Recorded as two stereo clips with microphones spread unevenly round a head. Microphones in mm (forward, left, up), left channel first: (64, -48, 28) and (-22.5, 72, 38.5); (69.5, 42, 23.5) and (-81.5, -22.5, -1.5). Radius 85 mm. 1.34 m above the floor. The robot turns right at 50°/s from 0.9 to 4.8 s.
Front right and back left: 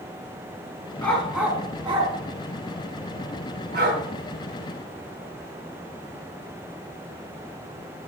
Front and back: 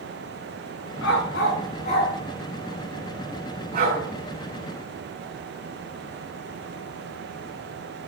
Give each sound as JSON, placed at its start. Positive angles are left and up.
{"t": 1.0, "sound": "a dog barking", "azimuth_deg": 25, "distance_m": 5.0}